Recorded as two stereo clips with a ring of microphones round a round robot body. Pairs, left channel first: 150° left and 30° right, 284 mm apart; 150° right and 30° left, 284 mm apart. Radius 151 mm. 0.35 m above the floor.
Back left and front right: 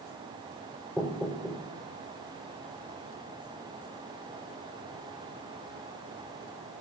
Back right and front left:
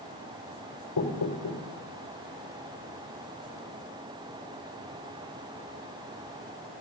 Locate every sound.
1.0 s knocking: 125° right, 6.5 m